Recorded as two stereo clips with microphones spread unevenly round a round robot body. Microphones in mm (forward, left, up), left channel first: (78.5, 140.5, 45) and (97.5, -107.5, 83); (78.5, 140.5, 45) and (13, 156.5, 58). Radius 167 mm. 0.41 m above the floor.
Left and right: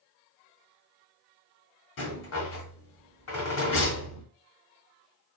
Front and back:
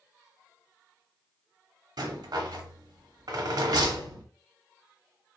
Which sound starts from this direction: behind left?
A rattle, at 2.0 s.